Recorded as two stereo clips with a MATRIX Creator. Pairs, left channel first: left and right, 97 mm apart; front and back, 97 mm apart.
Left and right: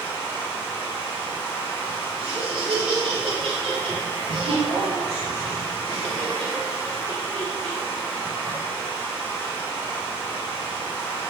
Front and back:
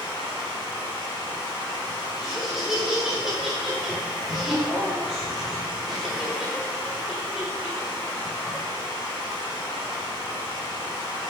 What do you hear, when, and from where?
0.0 s running water: 35° left, 1.5 m
2.2 s laughter: 95° right, 1.2 m